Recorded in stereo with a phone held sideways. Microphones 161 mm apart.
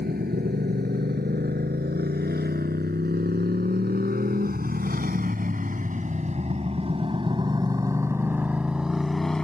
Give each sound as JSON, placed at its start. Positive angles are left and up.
{"t": 0.0, "sound": "a motorcycle", "side_deg": -85}